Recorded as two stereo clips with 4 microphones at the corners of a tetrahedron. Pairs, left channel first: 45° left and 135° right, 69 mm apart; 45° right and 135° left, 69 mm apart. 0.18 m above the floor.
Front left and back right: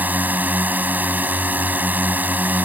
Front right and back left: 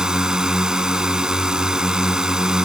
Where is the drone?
155° right.